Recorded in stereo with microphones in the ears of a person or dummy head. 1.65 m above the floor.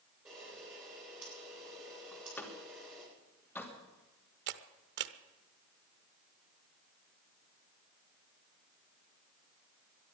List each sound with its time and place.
0.2 s a camera shutter: 20° right (ahead or behind), 9 m
2.1 s a door slam: centre (ahead or behind), 2.5 m
4.5 s a camera shutter: 55° right (ahead or behind), 0.9 m